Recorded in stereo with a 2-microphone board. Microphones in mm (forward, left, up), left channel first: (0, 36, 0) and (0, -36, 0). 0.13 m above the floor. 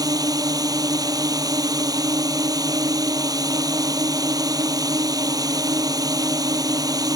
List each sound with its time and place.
0.0 s a drone: 60° right (ahead or behind)